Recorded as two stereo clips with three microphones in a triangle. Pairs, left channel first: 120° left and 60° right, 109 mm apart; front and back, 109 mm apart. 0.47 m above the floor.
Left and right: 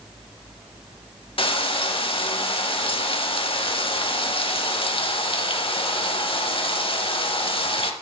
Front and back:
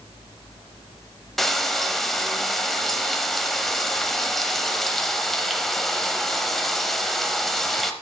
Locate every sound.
1.4 s frying: 90° left, 0.7 m